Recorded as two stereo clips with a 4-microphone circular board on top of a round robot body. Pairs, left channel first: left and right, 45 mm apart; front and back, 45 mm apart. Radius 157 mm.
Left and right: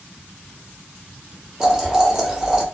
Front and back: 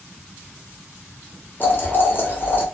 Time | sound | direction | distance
1.6 | boiling | 20° right | 1.2 m